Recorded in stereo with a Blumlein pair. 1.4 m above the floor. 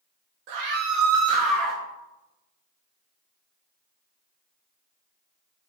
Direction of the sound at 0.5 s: 45° right.